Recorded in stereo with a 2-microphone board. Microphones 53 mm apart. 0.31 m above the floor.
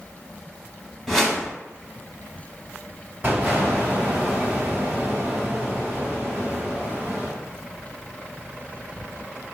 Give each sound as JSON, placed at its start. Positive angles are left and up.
{"t": 1.1, "sound": "a whoosh", "side_deg": 0, "distance_m": 0.8}
{"t": 3.2, "sound": "an explosion", "side_deg": -35, "distance_m": 1.3}